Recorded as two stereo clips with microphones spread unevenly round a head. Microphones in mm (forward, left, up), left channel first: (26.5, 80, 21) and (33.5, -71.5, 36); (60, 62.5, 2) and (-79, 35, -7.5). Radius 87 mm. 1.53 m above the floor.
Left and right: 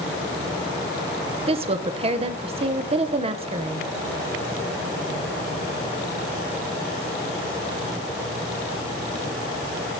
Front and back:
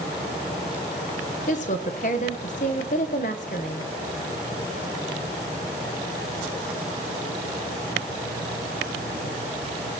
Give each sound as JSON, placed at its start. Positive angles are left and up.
{"t": 1.5, "sound": "a woman speaking", "azimuth_deg": -35, "distance_m": 0.9}